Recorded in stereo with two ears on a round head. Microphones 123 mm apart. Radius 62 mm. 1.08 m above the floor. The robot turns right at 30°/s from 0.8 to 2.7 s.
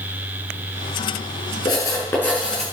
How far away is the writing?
About 7.5 m.